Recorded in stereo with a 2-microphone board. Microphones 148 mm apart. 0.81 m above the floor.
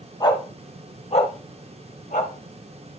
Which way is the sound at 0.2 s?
30° left (ahead or behind).